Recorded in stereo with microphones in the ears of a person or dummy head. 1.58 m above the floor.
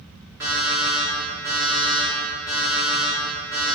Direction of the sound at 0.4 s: 15° right (ahead or behind).